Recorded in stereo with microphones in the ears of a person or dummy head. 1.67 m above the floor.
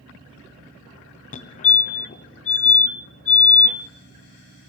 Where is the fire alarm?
35° left (ahead or behind), 1.3 m.